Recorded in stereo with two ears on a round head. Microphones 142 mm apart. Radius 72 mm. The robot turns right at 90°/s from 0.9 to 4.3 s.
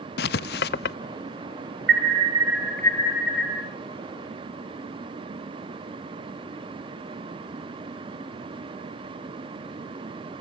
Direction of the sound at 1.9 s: 70° right.